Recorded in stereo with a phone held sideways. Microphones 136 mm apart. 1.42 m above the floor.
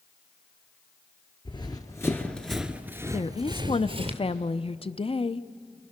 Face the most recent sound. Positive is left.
turn(degrees=45)  # may be behind; listen again after turning